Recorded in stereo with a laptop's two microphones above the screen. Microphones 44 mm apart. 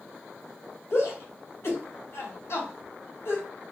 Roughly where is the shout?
Left.